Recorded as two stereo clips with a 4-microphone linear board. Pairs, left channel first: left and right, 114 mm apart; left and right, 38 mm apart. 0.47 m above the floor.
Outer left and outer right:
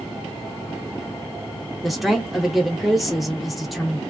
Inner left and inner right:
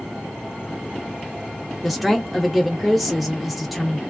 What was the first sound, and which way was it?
A woman speaking, centre (ahead or behind).